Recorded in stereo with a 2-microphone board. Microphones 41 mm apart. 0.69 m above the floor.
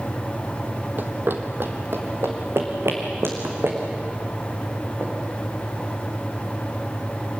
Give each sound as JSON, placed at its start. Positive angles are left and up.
{"t": 1.0, "sound": "running footsteps", "side_deg": -55, "distance_m": 1.4}